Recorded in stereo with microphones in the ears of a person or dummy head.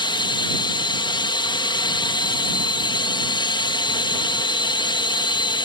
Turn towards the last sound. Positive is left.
turn(degrees=25)  # may be behind; listen again after turning